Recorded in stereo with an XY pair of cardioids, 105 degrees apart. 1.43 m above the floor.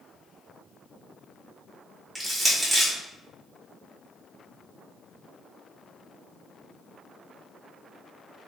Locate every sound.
2.1 s crushing: 5° left, 1.5 m